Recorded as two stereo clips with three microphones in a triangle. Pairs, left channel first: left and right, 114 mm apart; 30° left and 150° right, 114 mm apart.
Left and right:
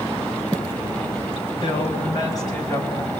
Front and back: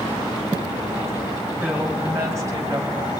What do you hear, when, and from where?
1.6 s a woman speaking: 135° left, 5 m; by 3.1 s 155° left, 5.5 m